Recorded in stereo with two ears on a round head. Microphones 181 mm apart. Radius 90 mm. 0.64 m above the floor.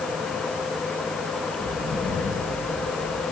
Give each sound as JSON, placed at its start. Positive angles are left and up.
{"t": 1.6, "sound": "footsteps", "side_deg": 15, "distance_m": 5.0}